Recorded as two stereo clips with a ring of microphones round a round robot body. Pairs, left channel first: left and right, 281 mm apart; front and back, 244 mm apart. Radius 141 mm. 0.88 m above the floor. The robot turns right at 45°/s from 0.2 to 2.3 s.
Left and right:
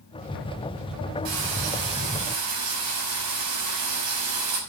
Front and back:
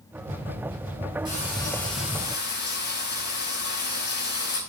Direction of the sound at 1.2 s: 105° right.